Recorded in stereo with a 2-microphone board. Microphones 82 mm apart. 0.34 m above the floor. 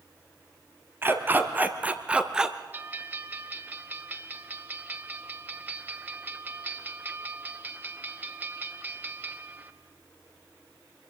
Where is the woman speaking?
I don't hear a woman speaking.